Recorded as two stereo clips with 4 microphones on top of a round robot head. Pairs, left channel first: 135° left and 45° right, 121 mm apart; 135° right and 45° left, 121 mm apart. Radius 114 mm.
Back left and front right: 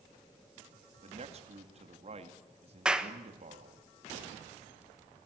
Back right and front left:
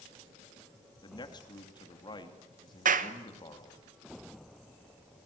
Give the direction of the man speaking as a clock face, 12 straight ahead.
3 o'clock.